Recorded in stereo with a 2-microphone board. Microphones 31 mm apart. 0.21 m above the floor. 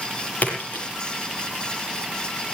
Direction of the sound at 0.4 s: 60° left (ahead or behind).